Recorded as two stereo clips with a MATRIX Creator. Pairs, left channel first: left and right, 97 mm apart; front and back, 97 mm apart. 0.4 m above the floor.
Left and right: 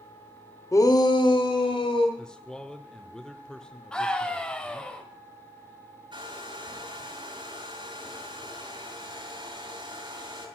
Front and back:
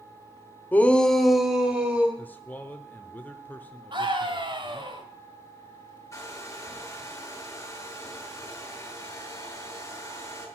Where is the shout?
60° left, 1.0 m; by 2.1 s 105° left, 2 m.